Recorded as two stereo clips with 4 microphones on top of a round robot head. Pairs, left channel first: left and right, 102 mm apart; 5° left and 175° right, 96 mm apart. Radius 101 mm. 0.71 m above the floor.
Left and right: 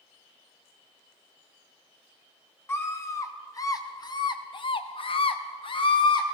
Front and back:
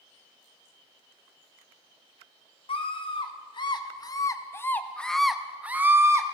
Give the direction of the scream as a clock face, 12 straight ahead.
11 o'clock.